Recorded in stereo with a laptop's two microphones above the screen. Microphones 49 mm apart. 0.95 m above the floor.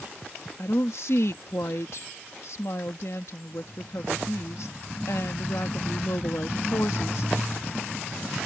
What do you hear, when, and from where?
0.6 s a woman speaking: 65° left (ahead or behind)